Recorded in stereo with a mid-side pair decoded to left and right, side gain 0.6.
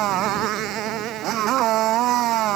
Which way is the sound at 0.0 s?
60° right.